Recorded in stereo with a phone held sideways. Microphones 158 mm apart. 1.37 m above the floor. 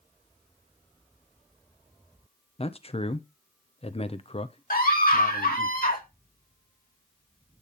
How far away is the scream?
About 1.8 m.